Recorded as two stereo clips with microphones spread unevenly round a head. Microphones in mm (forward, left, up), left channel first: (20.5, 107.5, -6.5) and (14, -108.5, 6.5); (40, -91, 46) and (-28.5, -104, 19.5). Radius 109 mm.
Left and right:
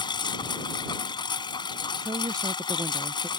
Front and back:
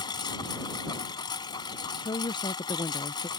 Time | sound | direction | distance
0.0 | a lawn mower | 15° left | ?
2.0 | a woman speaking | 15° right | ?